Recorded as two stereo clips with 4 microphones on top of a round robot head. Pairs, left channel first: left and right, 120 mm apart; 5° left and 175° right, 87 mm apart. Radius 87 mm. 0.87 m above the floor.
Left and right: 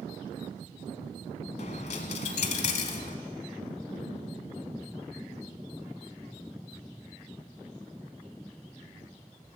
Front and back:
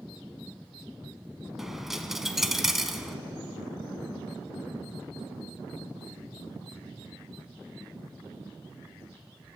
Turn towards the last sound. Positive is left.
turn(degrees=100)